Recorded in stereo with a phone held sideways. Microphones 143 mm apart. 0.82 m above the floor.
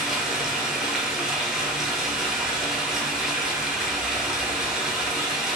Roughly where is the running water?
Centre.